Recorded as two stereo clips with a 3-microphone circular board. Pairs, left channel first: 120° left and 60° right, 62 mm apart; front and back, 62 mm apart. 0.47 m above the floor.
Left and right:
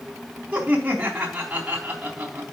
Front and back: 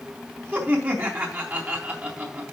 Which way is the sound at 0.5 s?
125° right.